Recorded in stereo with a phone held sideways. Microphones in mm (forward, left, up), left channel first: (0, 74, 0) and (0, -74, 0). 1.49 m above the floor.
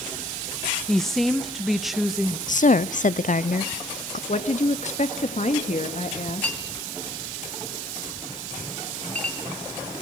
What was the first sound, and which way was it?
A woman speaking, 5° left (ahead or behind).